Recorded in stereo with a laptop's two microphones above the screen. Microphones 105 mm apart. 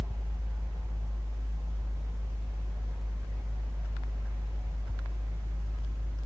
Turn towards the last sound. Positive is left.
turn(degrees=-30)  # may be behind; listen again after turning